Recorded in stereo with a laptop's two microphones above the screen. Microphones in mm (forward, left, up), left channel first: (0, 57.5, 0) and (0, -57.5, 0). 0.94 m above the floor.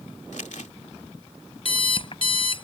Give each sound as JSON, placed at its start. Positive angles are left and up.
{"t": 0.3, "sound": "crumpling", "side_deg": 75}
{"t": 1.6, "sound": "an alarm clock", "side_deg": 45}